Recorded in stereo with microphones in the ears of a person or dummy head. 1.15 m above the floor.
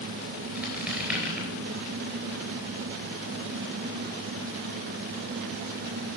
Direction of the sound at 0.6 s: Centre (ahead or behind).